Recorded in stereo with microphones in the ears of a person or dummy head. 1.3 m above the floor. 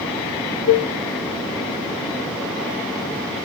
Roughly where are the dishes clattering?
Left.